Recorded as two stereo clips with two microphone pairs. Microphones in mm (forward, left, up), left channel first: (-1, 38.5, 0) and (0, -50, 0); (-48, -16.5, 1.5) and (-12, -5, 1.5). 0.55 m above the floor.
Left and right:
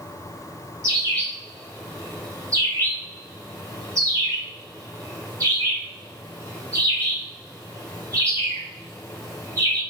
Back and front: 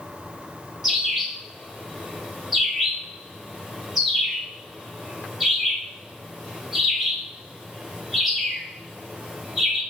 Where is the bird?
60° right, 1.7 m.